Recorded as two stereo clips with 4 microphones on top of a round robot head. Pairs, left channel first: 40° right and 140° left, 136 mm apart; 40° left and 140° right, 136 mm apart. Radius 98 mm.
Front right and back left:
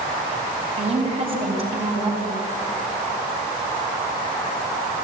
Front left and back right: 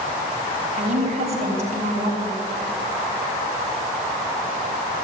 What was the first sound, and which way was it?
A woman speaking, 175° right.